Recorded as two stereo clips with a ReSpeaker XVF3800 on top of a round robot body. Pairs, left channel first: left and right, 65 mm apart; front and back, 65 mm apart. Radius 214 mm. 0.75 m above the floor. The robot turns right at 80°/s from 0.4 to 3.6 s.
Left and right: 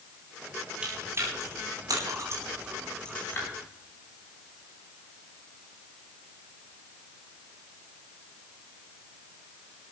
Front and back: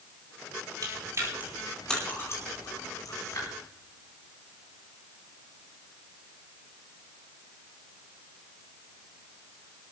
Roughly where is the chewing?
Behind.